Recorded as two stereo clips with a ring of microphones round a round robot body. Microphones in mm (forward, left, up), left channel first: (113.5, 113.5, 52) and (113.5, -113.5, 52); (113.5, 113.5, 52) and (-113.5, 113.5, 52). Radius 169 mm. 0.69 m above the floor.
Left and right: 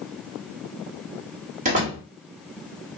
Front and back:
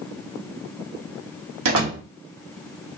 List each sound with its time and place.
1.6 s a door slam: 155° right, 2.0 m